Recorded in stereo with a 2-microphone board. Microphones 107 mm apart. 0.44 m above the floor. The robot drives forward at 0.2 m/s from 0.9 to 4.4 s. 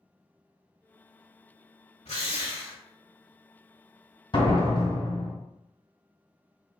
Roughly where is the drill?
Left.